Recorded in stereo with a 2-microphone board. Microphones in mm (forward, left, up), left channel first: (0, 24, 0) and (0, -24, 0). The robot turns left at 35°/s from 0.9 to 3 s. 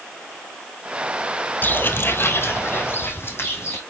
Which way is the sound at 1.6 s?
45° left (ahead or behind).